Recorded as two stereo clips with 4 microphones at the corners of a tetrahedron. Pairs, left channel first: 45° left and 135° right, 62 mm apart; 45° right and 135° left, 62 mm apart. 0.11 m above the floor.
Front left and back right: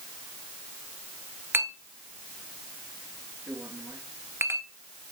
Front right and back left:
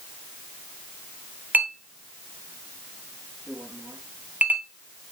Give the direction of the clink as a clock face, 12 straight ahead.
6 o'clock.